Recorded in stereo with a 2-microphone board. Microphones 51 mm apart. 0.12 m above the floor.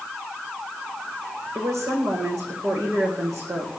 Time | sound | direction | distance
1.6 | a woman speaking | 75° right (ahead or behind) | 8 m